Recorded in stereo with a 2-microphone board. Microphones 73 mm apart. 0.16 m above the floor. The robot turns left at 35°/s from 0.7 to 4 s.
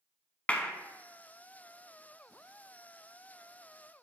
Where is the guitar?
No guitar in this recording.